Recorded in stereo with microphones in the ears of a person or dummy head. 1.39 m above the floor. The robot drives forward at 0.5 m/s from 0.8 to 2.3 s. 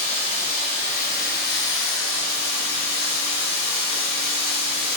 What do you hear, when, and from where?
0.0 s running water: 40° left (ahead or behind), 0.8 m; by 5.0 s 60° left (ahead or behind), 0.6 m